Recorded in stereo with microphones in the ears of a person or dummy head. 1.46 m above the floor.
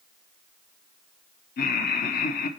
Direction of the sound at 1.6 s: 50° left (ahead or behind).